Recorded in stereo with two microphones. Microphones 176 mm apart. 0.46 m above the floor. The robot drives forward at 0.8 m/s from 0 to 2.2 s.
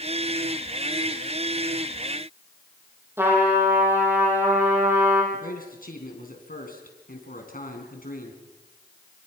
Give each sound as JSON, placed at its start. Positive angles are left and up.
{"t": 3.2, "sound": "a trumpet", "side_deg": -15, "distance_m": 6.5}
{"t": 5.3, "sound": "a man speaking", "side_deg": 55, "distance_m": 5.0}